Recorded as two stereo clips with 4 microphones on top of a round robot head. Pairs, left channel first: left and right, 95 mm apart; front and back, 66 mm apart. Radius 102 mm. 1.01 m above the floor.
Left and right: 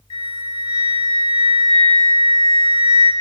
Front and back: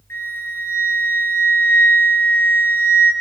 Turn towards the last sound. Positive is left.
turn(degrees=55)